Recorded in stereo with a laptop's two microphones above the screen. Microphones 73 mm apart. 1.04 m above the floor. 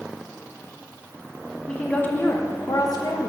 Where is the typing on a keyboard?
I don't hear typing on a keyboard.